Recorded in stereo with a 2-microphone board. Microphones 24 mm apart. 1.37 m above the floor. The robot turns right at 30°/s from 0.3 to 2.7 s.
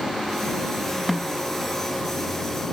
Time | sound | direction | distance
1.1 | a snare drum | centre (ahead or behind) | ?